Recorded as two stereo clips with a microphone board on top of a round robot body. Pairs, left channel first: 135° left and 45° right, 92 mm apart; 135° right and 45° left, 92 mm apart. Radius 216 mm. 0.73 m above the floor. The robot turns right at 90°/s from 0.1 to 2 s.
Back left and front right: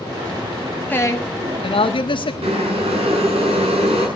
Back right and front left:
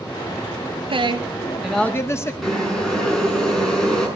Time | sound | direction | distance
0.9 | a woman speaking | 65° left | 1.7 m
2.4 | boiling | 50° right | 6.5 m